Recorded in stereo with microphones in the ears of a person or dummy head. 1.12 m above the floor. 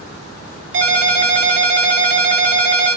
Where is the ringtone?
55° right (ahead or behind), 1.4 m.